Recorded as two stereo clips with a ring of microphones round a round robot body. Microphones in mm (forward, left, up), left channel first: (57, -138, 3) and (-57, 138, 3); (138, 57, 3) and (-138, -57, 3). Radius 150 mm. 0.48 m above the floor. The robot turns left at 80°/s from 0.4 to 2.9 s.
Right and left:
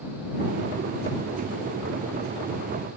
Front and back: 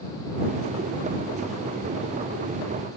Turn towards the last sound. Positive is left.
No sound to turn to.